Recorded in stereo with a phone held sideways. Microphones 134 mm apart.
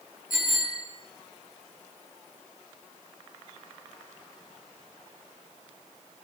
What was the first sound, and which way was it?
A bicycle bell, 85° left.